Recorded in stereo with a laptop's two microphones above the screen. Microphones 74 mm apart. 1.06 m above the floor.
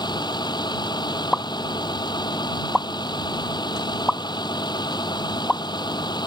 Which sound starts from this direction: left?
A vehicle, at 0.0 s.